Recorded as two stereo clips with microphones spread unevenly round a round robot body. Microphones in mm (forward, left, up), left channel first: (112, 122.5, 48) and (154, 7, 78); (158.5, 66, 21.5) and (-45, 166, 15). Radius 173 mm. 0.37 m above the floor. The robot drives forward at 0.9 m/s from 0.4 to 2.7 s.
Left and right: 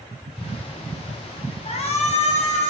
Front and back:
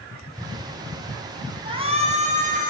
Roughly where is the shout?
Left.